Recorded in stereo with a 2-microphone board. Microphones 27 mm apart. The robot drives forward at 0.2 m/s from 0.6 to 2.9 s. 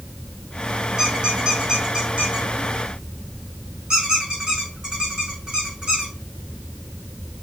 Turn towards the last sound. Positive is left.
turn(degrees=-30)  # may be behind; listen again after turning